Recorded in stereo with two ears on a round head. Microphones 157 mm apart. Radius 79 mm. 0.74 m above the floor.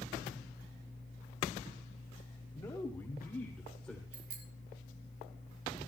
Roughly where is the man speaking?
Centre.